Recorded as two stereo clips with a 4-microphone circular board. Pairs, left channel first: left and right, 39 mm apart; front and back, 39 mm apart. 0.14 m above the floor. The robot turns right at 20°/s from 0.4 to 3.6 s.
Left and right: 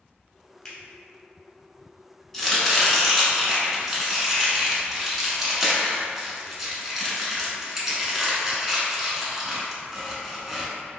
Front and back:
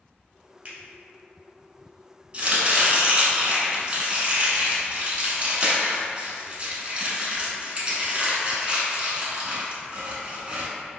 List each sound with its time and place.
0.7 s a finger snap: 150° left, 0.9 m
2.3 s chopping: 165° left, 0.7 m; by 10.7 s 170° right, 0.7 m